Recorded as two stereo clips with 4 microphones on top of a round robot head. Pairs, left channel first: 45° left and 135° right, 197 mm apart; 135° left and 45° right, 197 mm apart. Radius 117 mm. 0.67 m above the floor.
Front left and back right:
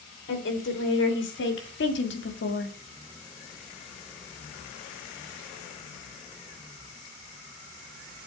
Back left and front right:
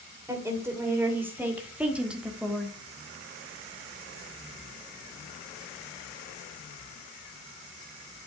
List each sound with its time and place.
0.3 s a woman speaking: 30° left, 3 m; by 2.8 s 45° left, 1.5 m